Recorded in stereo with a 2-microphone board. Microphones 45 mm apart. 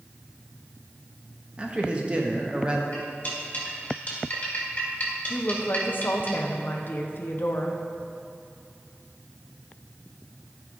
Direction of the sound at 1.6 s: 25° right (ahead or behind).